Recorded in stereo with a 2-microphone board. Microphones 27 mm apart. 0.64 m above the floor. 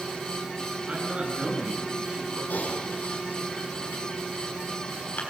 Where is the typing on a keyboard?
70° left (ahead or behind), 6 m.